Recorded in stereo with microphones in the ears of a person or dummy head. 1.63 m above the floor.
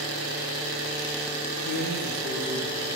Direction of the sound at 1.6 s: 65° right (ahead or behind).